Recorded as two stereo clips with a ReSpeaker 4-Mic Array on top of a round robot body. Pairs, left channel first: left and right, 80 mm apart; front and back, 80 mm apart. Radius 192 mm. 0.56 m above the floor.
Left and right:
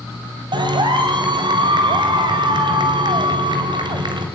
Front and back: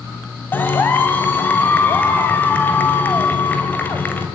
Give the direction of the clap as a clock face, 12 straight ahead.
2 o'clock.